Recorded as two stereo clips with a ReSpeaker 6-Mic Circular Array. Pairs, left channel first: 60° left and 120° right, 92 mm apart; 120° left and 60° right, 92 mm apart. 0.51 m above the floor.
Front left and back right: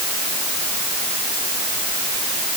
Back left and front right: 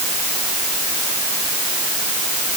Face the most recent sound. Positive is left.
No sound to turn to.